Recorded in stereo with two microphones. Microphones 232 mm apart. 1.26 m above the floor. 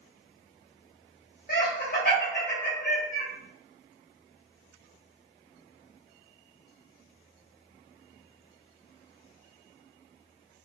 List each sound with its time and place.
1.5 s laughter: 40° left (ahead or behind), 0.6 m